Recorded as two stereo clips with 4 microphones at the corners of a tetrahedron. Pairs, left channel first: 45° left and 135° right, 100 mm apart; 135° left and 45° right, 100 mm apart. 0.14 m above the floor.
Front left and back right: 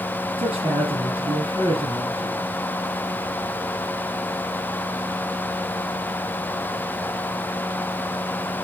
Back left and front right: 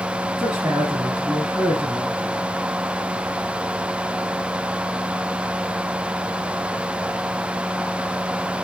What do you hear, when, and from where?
0.4 s a man speaking: 125° right, 3.5 m